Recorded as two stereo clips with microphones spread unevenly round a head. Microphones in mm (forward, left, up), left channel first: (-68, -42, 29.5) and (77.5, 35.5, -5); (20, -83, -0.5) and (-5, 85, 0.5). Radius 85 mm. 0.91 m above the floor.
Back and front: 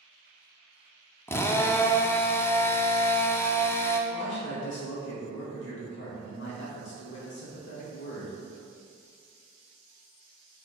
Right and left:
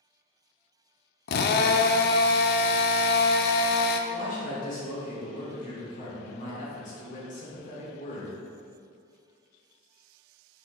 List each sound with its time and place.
1.3 s a drill: 85° right, 0.5 m
4.1 s a man speaking: 130° right, 2.5 m